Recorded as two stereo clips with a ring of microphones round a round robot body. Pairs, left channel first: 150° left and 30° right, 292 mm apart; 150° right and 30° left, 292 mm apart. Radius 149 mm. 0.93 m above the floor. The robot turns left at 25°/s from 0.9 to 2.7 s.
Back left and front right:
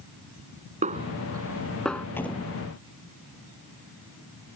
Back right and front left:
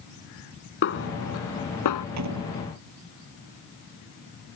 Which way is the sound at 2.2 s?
65° left.